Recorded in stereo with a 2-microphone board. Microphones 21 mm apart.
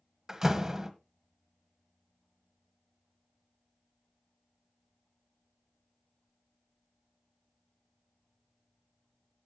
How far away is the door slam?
About 1.3 m.